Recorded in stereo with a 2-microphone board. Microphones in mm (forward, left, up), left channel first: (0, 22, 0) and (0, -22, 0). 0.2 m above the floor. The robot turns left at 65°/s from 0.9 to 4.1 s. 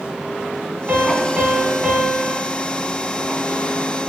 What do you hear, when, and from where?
0.9 s a piano: 95° right, 0.5 m; by 2.4 s 170° left, 0.5 m